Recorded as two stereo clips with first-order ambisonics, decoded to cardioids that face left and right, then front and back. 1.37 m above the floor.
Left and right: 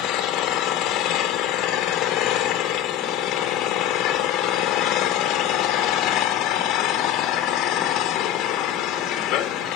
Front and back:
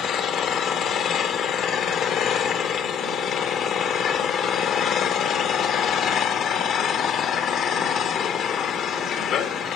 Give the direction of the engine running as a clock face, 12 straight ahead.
10 o'clock.